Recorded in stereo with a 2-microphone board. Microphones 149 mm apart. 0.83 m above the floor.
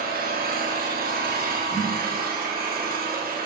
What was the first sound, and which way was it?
An engine running, 80° right.